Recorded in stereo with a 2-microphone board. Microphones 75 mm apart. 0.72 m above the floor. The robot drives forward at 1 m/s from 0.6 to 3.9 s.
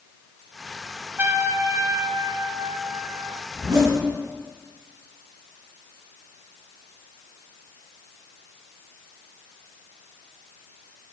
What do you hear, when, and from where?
1.2 s a trumpet: 30° right (ahead or behind), 1.8 m; by 3.4 s 40° right (ahead or behind), 1.3 m
3.5 s a zipper: 50° right (ahead or behind), 8.5 m